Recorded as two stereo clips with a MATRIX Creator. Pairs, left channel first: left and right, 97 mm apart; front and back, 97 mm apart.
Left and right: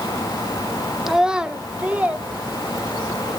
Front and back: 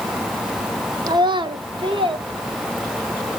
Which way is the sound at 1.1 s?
175° right.